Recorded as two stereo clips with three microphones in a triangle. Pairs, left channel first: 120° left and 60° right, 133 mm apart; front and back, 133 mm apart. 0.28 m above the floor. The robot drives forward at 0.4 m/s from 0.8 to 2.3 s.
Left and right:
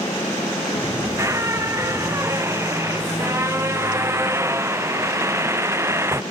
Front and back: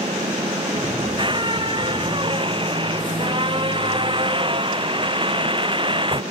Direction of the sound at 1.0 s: 125° right.